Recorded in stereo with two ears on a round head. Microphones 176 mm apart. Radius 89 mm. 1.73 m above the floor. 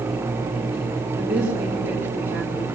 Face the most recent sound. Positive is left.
turn(degrees=-5)  # may be behind; listen again after turning